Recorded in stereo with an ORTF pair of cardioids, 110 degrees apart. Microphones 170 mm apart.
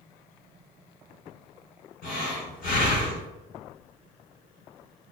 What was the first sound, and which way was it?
Breathing, 65° left.